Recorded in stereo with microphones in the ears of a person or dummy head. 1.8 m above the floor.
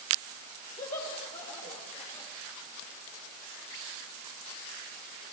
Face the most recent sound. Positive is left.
turn(degrees=30)  # may be behind; listen again after turning